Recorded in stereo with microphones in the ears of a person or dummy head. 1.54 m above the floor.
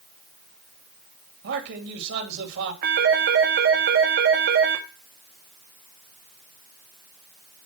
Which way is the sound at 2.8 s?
45° right (ahead or behind).